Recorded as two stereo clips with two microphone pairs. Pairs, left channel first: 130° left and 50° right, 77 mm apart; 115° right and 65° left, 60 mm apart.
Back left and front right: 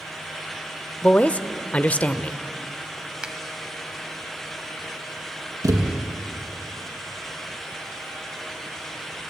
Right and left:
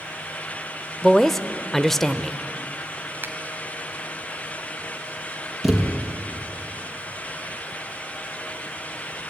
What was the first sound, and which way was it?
A woman speaking, 170° left.